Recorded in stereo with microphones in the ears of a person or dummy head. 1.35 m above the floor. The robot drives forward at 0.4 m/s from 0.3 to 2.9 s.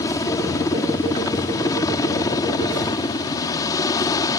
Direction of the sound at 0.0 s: 25° left (ahead or behind).